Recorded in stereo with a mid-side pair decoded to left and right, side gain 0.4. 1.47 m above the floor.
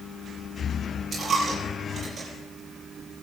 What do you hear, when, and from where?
1.1 s a dropped coin: 45° right, 7 m